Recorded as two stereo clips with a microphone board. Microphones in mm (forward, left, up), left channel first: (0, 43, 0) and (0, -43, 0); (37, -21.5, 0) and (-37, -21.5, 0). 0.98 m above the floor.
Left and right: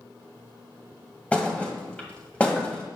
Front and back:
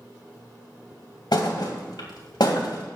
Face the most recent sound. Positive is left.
turn(degrees=15)